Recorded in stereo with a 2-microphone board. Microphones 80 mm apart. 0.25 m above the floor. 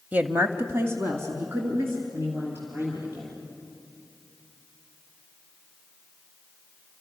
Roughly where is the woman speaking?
Right.